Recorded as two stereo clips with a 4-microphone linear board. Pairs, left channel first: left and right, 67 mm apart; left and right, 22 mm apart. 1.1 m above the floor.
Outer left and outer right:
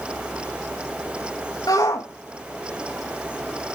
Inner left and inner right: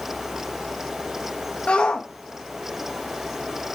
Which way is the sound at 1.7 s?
75° left (ahead or behind).